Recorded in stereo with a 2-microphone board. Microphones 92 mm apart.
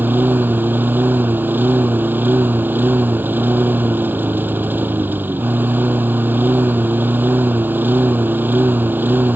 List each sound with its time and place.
0.0 s a lawn mower: 20° right (ahead or behind)